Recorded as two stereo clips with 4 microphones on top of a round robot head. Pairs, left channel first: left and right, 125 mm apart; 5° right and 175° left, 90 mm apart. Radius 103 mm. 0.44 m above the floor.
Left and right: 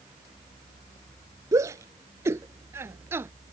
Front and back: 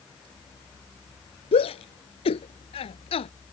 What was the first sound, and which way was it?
A shout, 20° right.